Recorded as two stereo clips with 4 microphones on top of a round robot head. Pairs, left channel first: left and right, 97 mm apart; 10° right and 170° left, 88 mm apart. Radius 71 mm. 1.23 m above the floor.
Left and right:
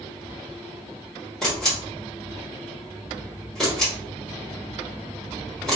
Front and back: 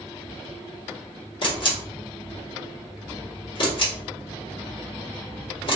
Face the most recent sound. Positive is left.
turn(degrees=5)